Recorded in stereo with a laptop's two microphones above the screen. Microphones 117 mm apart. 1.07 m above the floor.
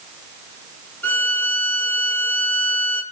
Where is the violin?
20° left (ahead or behind), 2.5 m.